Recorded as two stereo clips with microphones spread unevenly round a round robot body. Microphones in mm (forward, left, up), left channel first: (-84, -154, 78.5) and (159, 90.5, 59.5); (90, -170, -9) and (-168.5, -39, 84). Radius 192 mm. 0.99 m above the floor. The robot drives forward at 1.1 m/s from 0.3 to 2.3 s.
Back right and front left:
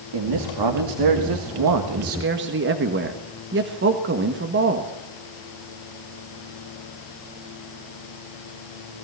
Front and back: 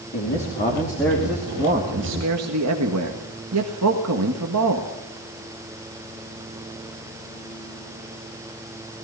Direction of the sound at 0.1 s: 35° left.